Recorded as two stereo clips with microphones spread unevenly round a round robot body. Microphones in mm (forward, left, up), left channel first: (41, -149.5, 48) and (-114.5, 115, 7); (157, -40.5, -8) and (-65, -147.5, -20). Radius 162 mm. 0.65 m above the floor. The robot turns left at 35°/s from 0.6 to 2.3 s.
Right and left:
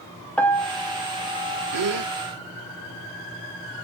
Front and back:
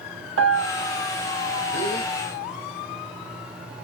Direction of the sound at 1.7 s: 110° left.